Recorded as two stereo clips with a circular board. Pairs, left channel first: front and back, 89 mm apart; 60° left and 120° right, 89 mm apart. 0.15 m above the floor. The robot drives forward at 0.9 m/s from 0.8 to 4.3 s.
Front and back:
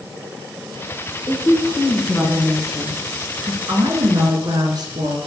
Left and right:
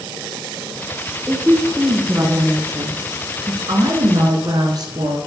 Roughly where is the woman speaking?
Ahead right.